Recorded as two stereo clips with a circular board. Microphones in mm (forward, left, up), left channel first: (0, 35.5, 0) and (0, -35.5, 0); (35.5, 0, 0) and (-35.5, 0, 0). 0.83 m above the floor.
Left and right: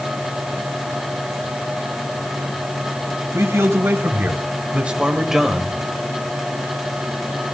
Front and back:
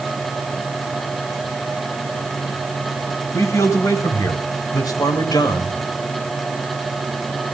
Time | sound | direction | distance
3.3 | a man speaking | 40° right | 4.5 m